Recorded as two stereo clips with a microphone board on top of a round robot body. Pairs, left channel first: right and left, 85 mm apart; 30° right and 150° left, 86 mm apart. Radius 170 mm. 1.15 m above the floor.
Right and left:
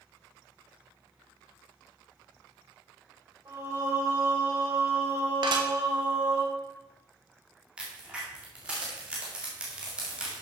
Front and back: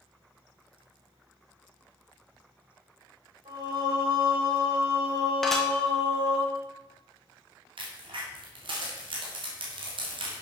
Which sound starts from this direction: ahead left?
Dishes clattering, at 5.4 s.